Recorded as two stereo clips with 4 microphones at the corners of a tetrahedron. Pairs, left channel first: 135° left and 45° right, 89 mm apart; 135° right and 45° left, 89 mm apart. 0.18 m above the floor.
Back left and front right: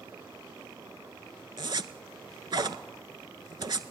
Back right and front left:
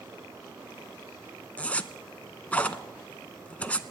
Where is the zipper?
60° right, 0.5 m.